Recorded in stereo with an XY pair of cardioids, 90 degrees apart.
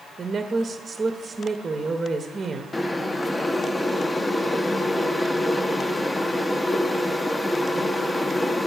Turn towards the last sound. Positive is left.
turn(degrees=25)